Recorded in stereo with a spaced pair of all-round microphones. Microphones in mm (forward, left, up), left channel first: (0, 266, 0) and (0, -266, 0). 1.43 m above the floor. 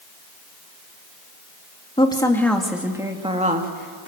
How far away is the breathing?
I don't hear breathing.